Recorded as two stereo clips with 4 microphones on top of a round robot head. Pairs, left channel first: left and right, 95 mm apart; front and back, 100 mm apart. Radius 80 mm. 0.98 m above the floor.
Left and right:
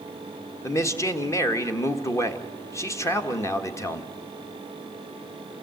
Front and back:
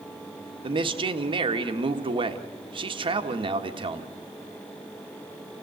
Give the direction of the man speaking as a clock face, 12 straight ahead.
7 o'clock.